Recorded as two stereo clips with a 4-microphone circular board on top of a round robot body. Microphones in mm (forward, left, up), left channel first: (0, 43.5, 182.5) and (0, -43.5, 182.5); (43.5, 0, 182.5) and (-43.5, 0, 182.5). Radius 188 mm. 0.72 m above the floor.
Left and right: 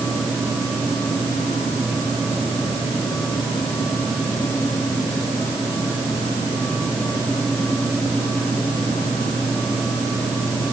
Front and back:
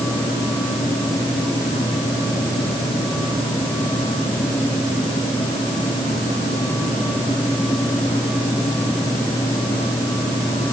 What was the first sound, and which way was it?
Only background noise.